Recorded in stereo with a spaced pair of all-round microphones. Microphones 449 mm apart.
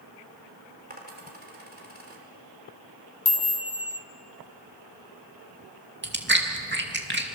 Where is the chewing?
25° right (ahead or behind), 2.5 m.